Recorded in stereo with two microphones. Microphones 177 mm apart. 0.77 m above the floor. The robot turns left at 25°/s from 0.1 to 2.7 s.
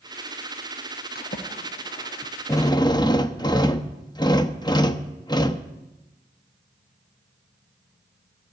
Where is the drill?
20° left (ahead or behind), 0.6 m; by 5.7 s 25° left (ahead or behind), 0.6 m.